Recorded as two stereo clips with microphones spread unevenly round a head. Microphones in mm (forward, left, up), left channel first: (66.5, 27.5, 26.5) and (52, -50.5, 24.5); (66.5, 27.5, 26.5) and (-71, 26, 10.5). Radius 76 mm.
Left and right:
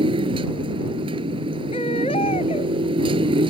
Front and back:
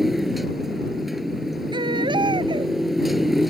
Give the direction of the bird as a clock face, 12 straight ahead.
I don't hear a bird.